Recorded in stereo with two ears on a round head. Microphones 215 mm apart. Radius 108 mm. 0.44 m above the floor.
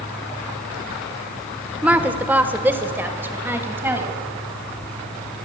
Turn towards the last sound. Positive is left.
turn(degrees=-10)  # may be behind; listen again after turning